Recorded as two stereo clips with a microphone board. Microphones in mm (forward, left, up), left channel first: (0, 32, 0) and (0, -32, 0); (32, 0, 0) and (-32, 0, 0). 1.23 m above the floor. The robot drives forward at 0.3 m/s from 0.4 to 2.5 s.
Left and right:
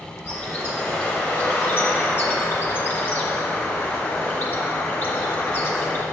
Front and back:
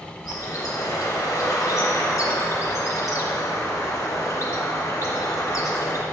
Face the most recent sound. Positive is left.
turn(degrees=35)